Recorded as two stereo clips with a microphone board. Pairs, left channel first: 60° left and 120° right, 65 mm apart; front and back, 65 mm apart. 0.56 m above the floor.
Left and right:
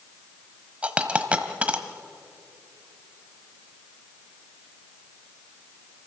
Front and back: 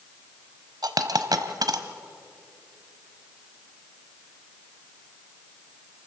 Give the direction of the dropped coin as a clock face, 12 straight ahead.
6 o'clock.